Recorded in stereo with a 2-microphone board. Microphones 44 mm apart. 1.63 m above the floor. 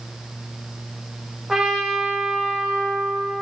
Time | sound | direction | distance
1.5 | a trumpet | 10° right (ahead or behind) | 2.5 m